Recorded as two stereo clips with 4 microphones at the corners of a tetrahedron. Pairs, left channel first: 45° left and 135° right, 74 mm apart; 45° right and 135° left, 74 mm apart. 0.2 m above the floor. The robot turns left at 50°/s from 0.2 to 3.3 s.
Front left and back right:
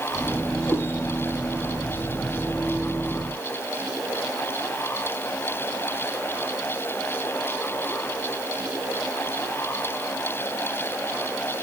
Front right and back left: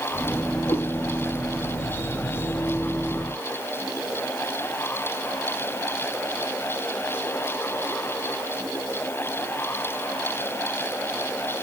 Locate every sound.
0.7 s a cat meowing: 10° right, 6.5 m; by 0.8 s 15° right, 6.5 m